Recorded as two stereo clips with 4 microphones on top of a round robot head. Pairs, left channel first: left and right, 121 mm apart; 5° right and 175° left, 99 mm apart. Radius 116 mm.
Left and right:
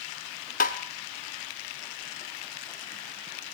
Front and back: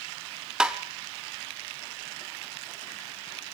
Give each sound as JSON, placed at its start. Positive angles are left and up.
{"t": 0.6, "sound": "tapping", "azimuth_deg": 95, "distance_m": 0.8}